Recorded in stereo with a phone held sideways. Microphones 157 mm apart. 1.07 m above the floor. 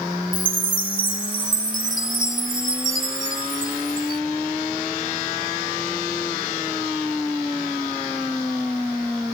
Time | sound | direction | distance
0.3 | a chime | 60° right (ahead or behind) | ?